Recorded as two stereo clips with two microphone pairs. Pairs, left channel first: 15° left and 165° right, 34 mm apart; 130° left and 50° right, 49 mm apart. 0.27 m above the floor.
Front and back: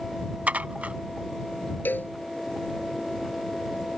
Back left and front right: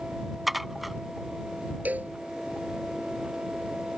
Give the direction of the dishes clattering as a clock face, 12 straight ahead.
5 o'clock.